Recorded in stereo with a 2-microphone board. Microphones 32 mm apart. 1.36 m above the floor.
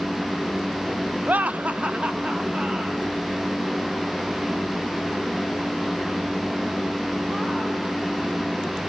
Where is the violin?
I don't hear a violin.